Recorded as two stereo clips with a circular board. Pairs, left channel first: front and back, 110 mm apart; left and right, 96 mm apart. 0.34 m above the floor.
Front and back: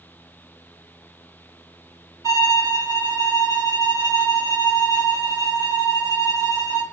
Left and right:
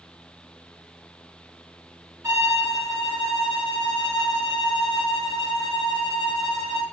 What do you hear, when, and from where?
2.2 s a violin: 140° right, 1.9 m